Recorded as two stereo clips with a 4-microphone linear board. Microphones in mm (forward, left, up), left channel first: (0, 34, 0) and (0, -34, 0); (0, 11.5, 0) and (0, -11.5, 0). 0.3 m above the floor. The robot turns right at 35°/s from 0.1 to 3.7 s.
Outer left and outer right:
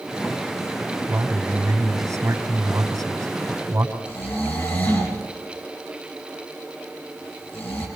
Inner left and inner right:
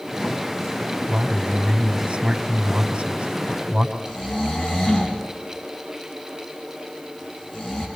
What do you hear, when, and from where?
1.1 s a man speaking: 145° right, 2.5 m; by 4.0 s 50° right, 2.5 m
4.0 s snoring: 35° left (ahead or behind), 5 m